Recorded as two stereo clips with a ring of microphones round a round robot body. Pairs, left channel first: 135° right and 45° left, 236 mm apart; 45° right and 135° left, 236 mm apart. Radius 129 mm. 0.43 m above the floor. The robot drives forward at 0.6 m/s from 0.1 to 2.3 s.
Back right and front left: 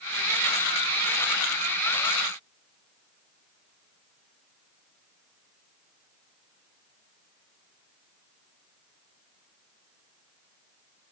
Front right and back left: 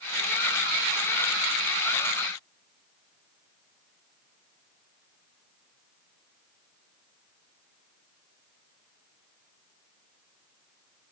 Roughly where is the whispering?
I don't hear whispering.